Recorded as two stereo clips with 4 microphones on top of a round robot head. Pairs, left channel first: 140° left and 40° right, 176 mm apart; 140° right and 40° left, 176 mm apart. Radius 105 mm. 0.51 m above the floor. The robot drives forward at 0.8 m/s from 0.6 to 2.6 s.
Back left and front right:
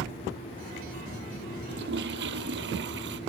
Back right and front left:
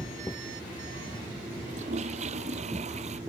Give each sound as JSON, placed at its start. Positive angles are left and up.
{"t": 1.7, "sound": "a toilet flushing", "azimuth_deg": -15}